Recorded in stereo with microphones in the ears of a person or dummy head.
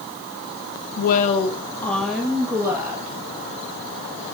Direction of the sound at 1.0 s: 55° left (ahead or behind).